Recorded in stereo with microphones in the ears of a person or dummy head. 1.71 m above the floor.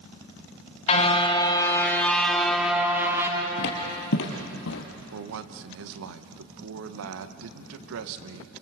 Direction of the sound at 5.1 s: 65° right (ahead or behind).